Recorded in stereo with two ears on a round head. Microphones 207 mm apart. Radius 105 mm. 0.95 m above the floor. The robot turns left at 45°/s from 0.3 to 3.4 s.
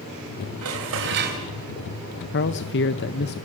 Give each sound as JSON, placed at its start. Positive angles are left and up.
{"t": 0.6, "sound": "dishes clattering", "azimuth_deg": -100, "distance_m": 4.0}
{"t": 2.3, "sound": "a man speaking", "azimuth_deg": 105, "distance_m": 0.7}